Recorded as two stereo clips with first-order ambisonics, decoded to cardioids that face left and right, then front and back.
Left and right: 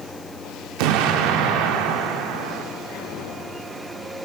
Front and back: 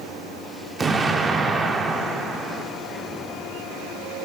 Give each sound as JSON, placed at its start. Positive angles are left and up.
{"t": 0.8, "sound": "an explosion", "azimuth_deg": -110, "distance_m": 0.7}